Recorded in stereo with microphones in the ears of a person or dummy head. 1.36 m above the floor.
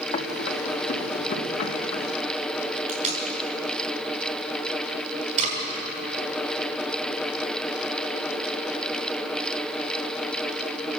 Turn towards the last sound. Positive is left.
turn(degrees=-35)  # may be behind; listen again after turning